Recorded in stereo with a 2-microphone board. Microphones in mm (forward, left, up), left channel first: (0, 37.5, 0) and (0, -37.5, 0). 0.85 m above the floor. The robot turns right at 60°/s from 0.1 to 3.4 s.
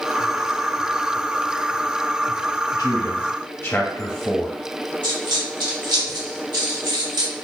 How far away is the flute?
No flute in this recording.